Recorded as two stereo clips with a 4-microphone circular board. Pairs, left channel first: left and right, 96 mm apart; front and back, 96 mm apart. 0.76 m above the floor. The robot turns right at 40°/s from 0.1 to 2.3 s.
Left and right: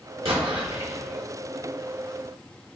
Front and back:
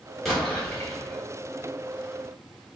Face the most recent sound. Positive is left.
turn(degrees=-5)